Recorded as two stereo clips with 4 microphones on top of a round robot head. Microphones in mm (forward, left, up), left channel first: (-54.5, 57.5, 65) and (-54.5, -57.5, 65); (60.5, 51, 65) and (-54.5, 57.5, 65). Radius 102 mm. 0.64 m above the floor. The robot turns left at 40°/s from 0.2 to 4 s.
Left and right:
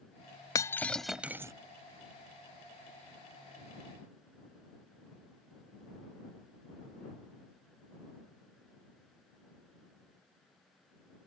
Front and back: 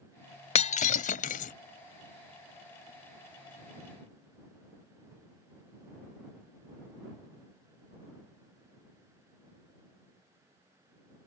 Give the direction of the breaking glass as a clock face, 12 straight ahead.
11 o'clock.